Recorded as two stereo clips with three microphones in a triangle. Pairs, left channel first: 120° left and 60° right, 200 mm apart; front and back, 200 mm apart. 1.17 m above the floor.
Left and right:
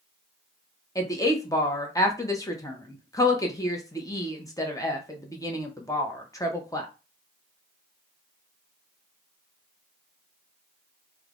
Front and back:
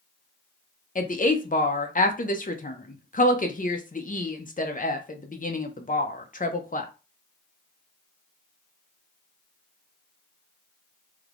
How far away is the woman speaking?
About 0.5 m.